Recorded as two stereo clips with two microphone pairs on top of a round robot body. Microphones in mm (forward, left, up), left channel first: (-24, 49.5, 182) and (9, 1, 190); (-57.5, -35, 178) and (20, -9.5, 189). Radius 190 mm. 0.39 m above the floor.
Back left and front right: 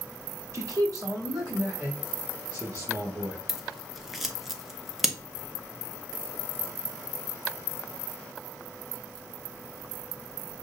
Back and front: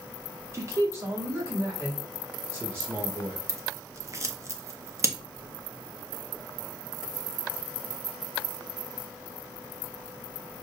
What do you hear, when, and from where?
0.5 s a man speaking: 35° right, 1.1 m; by 3.4 s 45° right, 4.5 m
3.5 s scissors: 45° left, 1.1 m